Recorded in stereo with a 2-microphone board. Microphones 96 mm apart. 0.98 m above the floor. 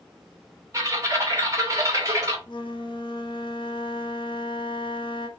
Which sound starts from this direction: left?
A flute, at 2.5 s.